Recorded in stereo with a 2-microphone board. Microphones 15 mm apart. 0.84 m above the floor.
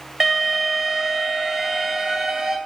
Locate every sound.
0.2 s an alarm: 40° right (ahead or behind), 2.5 m